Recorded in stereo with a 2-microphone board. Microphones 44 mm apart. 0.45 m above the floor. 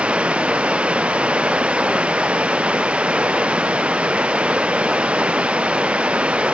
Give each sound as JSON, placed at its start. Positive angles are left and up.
{"t": 0.0, "sound": "running water", "side_deg": -30}